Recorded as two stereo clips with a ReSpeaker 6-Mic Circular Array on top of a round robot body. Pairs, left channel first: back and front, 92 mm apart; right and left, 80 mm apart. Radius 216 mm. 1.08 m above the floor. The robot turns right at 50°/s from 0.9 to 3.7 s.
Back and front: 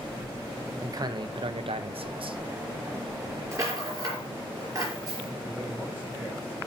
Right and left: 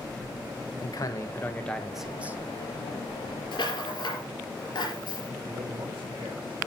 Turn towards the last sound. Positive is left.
turn(degrees=95)